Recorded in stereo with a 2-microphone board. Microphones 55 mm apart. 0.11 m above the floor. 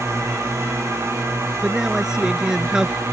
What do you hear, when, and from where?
0.0 s a drone: 70° right (ahead or behind); by 3.1 s 65° right (ahead or behind)
1.6 s a man speaking: 15° right (ahead or behind)